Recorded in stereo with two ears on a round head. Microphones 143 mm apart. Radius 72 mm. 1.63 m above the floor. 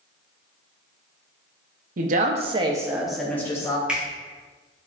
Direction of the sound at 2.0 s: 55° right (ahead or behind).